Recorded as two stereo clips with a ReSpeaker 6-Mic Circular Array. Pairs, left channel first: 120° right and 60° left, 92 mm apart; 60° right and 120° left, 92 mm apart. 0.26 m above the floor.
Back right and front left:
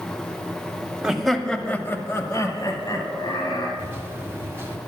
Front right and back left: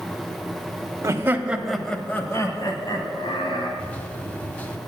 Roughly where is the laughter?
Behind left.